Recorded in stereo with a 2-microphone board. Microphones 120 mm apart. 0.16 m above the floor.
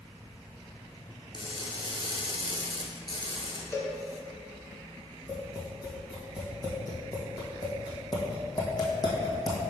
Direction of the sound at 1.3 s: 40° left (ahead or behind).